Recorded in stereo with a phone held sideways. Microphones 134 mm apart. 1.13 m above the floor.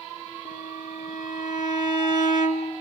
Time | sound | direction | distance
0.5 | a violin | 75° left (ahead or behind) | 3 m